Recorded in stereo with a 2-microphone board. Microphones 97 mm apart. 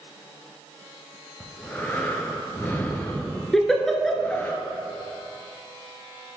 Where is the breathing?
20° left (ahead or behind), 0.9 m.